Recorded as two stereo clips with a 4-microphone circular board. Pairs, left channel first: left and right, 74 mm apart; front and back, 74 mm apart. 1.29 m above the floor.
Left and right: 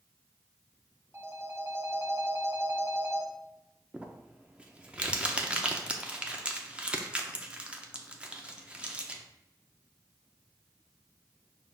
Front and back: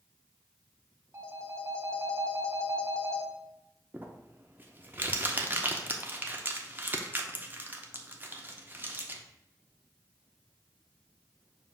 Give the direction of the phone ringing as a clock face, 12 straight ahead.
4 o'clock.